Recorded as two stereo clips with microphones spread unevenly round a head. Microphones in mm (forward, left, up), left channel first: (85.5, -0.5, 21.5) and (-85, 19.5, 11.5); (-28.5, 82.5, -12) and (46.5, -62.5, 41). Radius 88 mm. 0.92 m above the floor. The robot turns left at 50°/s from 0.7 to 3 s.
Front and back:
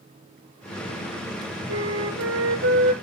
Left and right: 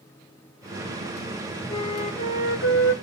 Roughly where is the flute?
Behind.